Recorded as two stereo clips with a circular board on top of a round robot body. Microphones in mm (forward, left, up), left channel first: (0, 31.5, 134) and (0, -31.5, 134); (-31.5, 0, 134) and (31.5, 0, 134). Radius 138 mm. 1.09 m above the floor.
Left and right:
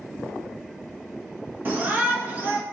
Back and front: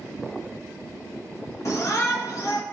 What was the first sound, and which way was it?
A shout, 150° right.